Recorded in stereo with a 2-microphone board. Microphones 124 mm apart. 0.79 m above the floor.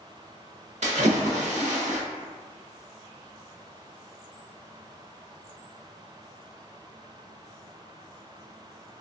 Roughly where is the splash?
Right.